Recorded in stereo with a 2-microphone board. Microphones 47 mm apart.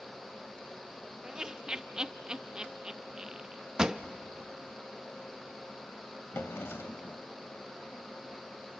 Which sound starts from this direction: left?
A drawer, at 6.3 s.